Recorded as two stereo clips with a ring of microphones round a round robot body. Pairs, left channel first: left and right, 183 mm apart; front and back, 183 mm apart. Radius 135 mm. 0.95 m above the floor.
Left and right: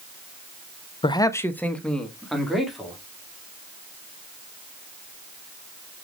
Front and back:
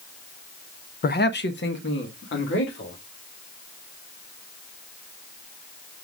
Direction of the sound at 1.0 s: 30° left.